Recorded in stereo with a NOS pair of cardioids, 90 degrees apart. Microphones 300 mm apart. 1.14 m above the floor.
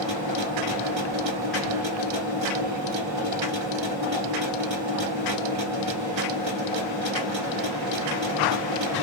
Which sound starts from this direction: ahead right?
A machine running, at 0.0 s.